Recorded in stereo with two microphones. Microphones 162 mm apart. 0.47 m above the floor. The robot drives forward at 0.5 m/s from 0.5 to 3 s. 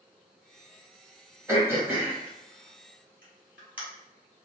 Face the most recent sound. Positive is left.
turn(degrees=-10)  # may be behind; listen again after turning